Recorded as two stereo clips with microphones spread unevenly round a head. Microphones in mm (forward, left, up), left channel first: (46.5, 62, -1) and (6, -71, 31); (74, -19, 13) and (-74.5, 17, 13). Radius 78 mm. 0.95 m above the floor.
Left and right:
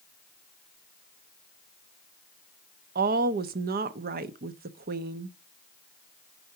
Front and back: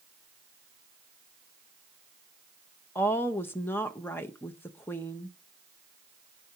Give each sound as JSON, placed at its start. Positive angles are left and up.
{"t": 3.0, "sound": "a woman speaking", "azimuth_deg": -90, "distance_m": 0.6}